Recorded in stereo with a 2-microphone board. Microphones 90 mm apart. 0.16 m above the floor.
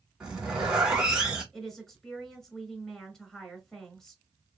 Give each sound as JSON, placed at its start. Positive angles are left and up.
{"t": 0.2, "sound": "a zipper", "side_deg": -10, "distance_m": 1.7}
{"t": 1.5, "sound": "a woman speaking", "side_deg": 5, "distance_m": 1.1}